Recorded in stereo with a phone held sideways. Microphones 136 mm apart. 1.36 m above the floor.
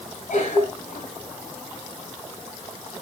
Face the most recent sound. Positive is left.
turn(degrees=90)